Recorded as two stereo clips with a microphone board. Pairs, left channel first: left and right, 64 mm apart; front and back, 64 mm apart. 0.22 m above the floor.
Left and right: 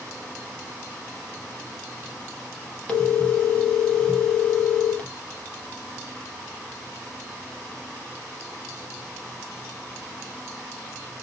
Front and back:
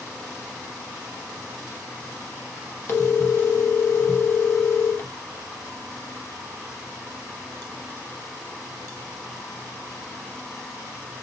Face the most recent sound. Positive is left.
turn(degrees=25)